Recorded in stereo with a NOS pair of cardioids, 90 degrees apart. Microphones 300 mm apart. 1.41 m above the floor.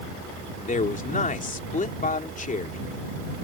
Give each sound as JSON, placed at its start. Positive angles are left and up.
{"t": 0.6, "sound": "a man speaking", "azimuth_deg": 30}